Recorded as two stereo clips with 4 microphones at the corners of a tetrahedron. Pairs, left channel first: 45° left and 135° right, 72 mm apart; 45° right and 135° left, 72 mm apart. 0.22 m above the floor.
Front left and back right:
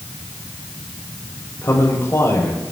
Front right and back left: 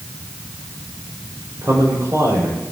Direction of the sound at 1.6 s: 95° left.